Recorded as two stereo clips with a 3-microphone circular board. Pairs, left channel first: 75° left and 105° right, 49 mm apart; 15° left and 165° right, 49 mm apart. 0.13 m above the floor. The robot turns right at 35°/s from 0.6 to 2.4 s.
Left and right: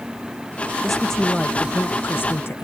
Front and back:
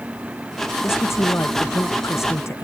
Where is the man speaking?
15° right; by 2.6 s 40° left.